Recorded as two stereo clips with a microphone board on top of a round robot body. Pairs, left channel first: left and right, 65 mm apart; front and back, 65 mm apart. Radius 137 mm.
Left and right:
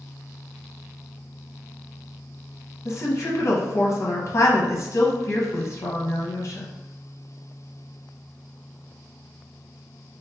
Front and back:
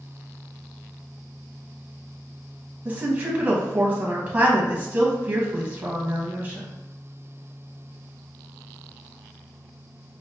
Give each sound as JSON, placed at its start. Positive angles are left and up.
{"t": 2.9, "sound": "a woman speaking", "azimuth_deg": 120, "distance_m": 1.0}